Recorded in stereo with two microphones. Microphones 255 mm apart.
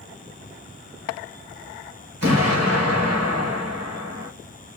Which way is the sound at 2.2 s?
80° right.